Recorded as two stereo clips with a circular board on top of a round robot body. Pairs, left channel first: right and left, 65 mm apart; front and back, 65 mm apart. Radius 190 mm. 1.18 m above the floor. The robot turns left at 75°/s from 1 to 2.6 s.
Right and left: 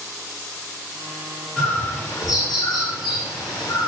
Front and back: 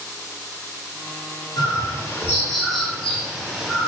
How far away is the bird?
About 4 m.